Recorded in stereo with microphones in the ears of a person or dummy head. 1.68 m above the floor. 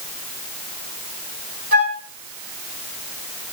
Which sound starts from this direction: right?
A flute, at 1.7 s.